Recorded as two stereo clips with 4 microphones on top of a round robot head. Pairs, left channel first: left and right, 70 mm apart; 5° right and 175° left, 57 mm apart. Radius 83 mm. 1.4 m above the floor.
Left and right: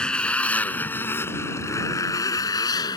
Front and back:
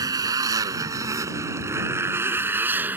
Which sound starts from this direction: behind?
A motorcycle, at 0.0 s.